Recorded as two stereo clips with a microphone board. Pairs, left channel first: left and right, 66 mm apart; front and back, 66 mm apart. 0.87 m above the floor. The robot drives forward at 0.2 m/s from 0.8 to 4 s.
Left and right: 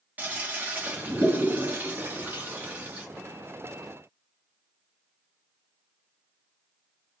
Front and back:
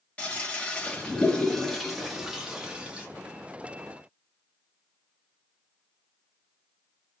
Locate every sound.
0.2 s a toilet flushing: 55° right, 0.7 m; by 3.1 s 125° right, 0.7 m